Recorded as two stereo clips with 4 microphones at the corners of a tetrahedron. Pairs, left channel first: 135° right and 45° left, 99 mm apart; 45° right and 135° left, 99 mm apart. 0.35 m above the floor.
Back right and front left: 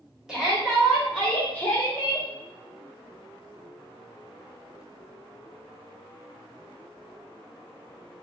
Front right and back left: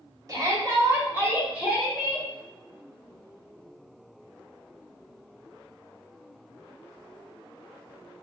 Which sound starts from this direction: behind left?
A shout, at 0.3 s.